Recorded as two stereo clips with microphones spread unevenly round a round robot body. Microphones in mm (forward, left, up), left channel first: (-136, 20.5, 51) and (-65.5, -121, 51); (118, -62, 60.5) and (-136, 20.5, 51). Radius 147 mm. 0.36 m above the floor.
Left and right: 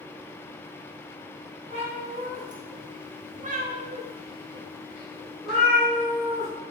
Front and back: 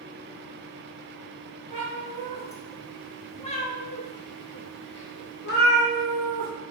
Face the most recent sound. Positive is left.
turn(degrees=40)